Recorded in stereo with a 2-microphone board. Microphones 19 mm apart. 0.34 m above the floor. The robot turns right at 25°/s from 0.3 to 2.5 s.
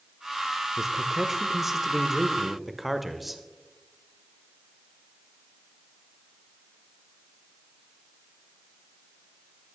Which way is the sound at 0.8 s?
20° right (ahead or behind).